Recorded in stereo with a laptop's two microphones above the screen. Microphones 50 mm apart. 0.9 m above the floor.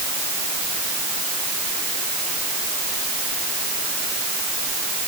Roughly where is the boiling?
No boiling in this recording.